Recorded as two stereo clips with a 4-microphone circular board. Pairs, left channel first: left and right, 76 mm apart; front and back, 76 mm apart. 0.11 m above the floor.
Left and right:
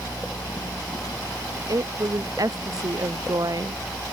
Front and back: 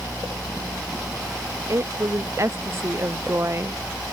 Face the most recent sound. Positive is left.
turn(degrees=-125)